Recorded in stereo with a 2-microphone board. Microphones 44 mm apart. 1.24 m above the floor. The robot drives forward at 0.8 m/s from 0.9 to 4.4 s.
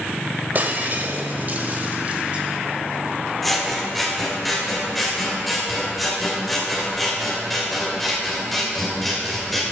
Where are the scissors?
5° left (ahead or behind), 1.7 m.